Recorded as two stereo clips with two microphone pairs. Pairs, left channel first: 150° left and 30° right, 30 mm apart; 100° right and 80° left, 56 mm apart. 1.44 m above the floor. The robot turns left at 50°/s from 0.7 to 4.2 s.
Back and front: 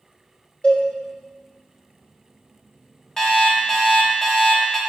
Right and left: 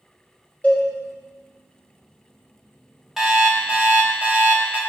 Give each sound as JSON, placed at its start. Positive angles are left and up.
{"t": 0.6, "sound": "a cowbell", "azimuth_deg": -160, "distance_m": 0.9}
{"t": 3.2, "sound": "an alarm clock", "azimuth_deg": 145, "distance_m": 0.7}